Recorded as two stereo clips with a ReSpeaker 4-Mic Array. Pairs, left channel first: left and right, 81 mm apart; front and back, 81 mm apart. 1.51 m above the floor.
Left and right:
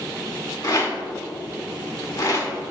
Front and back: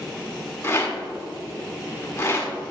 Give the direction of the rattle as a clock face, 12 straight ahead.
10 o'clock.